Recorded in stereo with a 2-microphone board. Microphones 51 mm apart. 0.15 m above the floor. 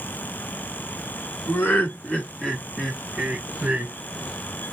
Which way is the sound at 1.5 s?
40° left (ahead or behind).